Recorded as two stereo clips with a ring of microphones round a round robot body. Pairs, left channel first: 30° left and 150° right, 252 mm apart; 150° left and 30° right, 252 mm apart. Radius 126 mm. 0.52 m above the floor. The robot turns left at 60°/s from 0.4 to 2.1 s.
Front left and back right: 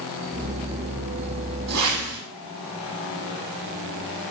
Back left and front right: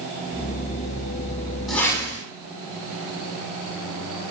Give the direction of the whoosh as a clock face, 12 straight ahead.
4 o'clock.